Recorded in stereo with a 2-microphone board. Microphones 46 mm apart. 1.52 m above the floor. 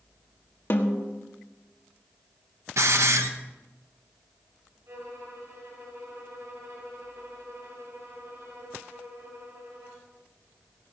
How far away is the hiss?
About 1.2 m.